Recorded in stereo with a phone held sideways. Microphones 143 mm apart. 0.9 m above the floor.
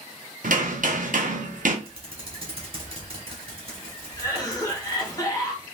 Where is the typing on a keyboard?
45° right (ahead or behind), 1.2 m.